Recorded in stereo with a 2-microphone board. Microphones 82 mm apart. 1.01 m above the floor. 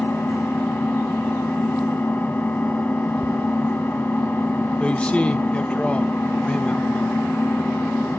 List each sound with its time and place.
0.0 s an engine running: 25° left (ahead or behind), 1.6 m
3.2 s ticking: centre (ahead or behind), 0.8 m
4.8 s a man speaking: 15° left (ahead or behind), 1.1 m